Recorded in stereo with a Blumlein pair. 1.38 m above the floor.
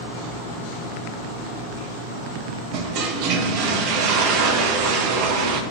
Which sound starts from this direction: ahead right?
A toilet flushing, at 2.7 s.